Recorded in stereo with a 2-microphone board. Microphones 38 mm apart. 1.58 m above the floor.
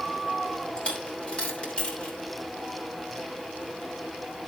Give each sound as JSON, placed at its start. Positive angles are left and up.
{"t": 0.8, "sound": "a dropped coin", "side_deg": 35, "distance_m": 3.0}